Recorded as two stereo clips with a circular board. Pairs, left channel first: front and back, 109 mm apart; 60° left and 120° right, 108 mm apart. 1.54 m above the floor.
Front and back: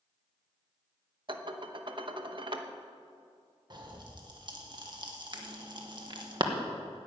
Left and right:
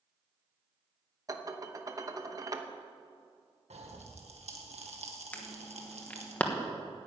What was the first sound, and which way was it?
Dishes clattering, 165° right.